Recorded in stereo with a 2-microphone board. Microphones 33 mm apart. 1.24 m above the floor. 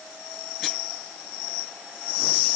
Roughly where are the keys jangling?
I don't hear keys jangling.